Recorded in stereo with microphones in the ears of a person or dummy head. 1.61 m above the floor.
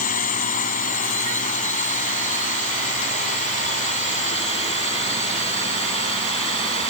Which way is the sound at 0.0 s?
45° left (ahead or behind).